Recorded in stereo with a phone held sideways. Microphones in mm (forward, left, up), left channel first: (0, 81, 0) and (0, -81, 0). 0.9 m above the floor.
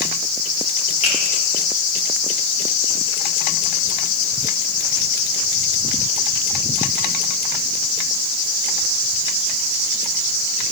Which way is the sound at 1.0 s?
40° left (ahead or behind).